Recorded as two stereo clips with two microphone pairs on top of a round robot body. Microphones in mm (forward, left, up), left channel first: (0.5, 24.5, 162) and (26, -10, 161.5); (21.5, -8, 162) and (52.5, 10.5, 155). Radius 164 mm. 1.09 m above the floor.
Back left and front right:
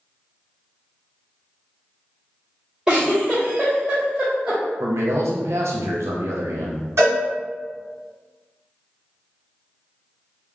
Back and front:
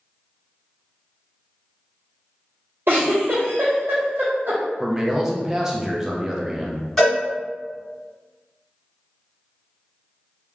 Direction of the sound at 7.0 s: 70° right.